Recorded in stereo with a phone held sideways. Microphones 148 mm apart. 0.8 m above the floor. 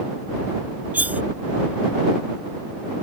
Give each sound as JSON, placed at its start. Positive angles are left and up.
{"t": 0.9, "sound": "cutlery clinking", "side_deg": -10}